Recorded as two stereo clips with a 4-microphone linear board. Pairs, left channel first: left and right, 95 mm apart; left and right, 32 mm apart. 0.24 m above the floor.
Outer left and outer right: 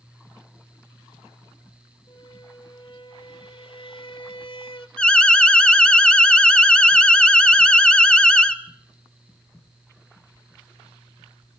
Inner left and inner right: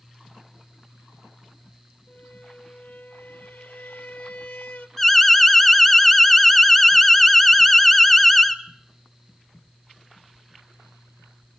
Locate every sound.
2.1 s a squeak: 70° left (ahead or behind), 1.3 m
5.0 s an alarm: 10° left (ahead or behind), 0.8 m